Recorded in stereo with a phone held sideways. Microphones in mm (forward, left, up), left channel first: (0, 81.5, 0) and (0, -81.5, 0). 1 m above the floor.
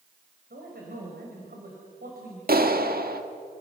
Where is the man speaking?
75° right (ahead or behind), 5 m.